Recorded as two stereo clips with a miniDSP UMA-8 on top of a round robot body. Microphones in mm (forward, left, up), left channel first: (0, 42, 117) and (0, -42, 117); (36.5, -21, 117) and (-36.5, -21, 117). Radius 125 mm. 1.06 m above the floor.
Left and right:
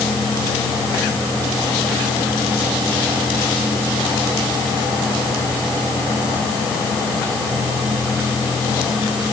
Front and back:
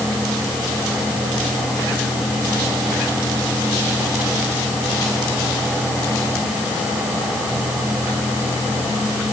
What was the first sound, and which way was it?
Only background noise.